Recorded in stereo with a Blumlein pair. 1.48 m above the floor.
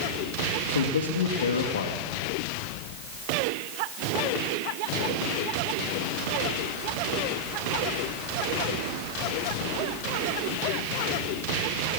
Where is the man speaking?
65° left, 2.5 m.